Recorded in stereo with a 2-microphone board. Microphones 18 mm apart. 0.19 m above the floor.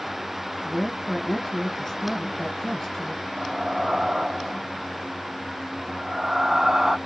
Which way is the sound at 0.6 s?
20° left (ahead or behind).